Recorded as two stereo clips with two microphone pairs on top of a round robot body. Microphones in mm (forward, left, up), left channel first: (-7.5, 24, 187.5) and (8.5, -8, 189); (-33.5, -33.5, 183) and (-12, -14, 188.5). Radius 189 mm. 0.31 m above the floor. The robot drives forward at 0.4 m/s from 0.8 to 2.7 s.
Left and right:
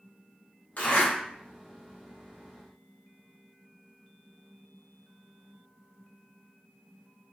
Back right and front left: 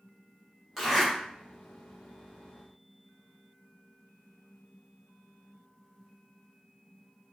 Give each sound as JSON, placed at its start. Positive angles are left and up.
{"t": 0.8, "sound": "a zipper", "azimuth_deg": 135, "distance_m": 2.0}